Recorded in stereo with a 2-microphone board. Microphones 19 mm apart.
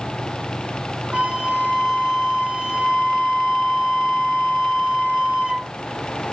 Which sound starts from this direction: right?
A flute, at 1.1 s.